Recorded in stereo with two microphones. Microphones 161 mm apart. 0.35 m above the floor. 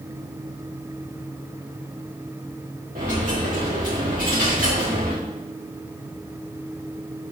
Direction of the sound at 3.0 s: 65° right (ahead or behind).